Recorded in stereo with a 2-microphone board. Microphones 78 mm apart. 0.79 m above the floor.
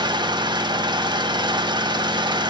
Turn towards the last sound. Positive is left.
turn(degrees=-75)  # may be behind; listen again after turning